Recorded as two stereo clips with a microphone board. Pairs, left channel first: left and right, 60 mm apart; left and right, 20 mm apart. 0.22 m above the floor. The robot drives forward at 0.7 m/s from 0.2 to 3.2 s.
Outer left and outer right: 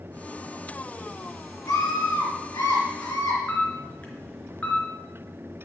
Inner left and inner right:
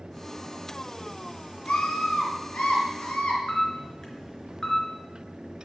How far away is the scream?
About 4.5 m.